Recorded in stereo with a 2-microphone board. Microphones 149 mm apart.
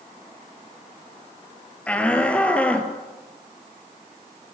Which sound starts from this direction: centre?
A shout, at 1.9 s.